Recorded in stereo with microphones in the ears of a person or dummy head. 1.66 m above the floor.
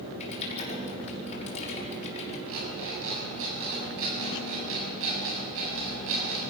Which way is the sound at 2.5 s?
70° right (ahead or behind).